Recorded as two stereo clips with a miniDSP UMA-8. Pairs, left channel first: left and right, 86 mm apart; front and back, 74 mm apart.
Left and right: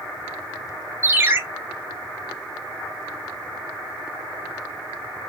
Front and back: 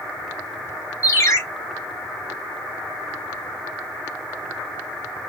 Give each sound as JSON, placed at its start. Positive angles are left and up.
{"t": 1.0, "sound": "a ringtone", "azimuth_deg": -35, "distance_m": 0.9}